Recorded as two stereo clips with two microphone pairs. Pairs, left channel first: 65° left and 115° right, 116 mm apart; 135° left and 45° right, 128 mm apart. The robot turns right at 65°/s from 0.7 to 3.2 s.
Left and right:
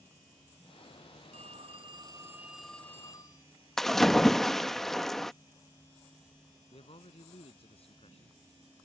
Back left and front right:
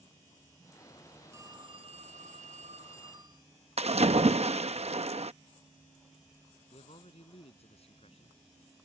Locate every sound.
1.3 s a phone ringing: 110° right; by 3.5 s 10° left
3.8 s a splash: 25° right
6.7 s a man speaking: 100° left